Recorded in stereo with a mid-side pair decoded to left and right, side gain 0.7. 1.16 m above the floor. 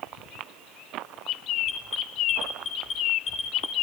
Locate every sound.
1.7 s an alarm: 45° left, 5 m